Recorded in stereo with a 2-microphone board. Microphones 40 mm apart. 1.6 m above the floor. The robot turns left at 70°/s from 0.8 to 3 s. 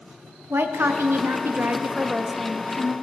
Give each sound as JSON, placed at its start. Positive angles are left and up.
{"t": 0.5, "sound": "a woman speaking", "azimuth_deg": -70, "distance_m": 0.6}